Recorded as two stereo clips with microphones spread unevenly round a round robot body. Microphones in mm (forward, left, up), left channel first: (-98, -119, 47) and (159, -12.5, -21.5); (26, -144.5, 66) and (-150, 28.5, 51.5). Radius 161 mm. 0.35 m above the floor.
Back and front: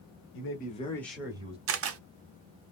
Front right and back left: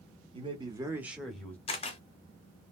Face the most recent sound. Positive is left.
turn(degrees=25)